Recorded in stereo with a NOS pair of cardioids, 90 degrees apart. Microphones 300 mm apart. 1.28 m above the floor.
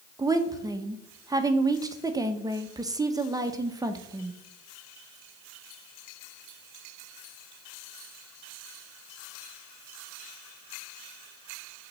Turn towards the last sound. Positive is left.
turn(degrees=-10)